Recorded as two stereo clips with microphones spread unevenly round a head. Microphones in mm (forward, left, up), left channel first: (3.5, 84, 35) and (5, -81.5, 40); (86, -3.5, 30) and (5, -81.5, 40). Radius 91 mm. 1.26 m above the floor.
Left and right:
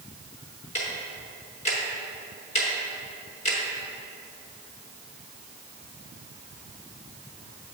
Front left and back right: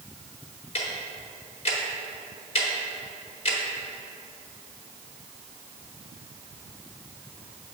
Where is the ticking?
50° left, 1.0 m.